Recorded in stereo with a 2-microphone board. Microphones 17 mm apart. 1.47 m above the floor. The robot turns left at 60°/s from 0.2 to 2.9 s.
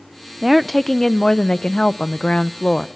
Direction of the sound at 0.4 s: 165° right.